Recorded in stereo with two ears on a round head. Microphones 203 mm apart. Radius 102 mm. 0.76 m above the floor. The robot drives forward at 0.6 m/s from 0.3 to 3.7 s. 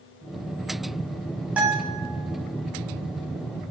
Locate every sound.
1.6 s a guitar: 5° right (ahead or behind), 1.4 m